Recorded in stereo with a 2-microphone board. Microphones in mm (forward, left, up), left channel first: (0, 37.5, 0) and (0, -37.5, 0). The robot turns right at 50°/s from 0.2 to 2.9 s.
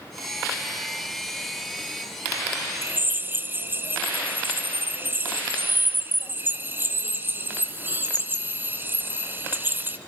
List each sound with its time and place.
2.8 s a drill: 30° right (ahead or behind), 2.0 m